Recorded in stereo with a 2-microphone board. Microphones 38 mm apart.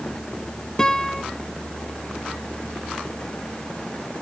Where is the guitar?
20° left (ahead or behind), 0.9 m.